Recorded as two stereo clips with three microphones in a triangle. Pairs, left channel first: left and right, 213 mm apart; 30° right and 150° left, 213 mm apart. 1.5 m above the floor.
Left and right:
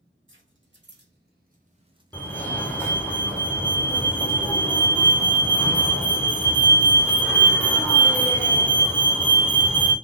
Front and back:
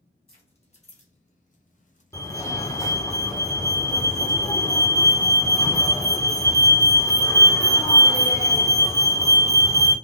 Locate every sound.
0.3 s keys jangling: 90° right, 1.5 m; by 2.4 s 5° right, 0.8 m
2.1 s a fire alarm: 20° left, 0.8 m